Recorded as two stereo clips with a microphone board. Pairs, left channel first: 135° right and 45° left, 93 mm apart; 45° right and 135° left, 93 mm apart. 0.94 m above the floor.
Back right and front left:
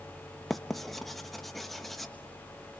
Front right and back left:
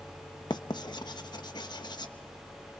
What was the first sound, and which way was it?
Writing, 45° right.